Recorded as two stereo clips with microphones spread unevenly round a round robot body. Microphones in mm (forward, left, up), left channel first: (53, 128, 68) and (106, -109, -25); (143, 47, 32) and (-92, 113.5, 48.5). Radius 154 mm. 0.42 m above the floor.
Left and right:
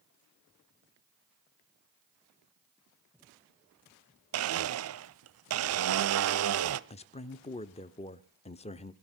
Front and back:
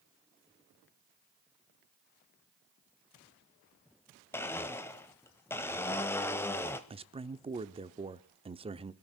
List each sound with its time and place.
4.3 s a blender: 95° right, 0.7 m
6.9 s a man speaking: 175° right, 0.7 m